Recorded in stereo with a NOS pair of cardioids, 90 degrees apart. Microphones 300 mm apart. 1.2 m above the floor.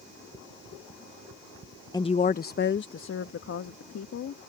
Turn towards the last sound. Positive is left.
turn(degrees=55)